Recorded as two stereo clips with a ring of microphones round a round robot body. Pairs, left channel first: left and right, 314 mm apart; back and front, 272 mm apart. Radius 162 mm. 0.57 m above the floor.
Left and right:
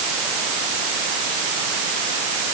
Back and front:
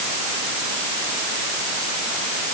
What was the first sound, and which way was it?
Only background noise.